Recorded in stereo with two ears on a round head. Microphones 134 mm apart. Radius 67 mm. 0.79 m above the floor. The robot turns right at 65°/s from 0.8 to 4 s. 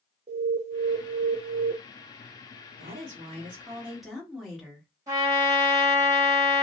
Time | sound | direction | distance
0.3 | an alarm | 120° right | 0.8 m
2.8 | a woman speaking | 80° right | 1.2 m
5.1 | a trumpet | 25° right (ahead or behind) | 1.7 m